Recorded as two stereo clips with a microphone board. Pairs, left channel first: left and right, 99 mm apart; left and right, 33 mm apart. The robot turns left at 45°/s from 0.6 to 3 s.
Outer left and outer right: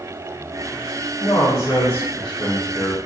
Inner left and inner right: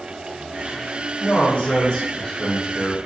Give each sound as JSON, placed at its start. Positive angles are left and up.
{"t": 1.2, "sound": "a man speaking", "azimuth_deg": 55, "distance_m": 2.0}